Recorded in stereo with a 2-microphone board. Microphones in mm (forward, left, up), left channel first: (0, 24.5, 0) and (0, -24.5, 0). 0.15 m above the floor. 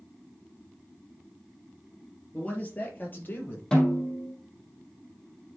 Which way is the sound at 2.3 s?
25° left (ahead or behind).